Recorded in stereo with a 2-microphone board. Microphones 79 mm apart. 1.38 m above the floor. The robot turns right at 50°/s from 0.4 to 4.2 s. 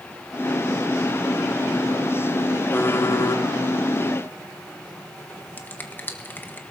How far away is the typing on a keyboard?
About 1.6 m.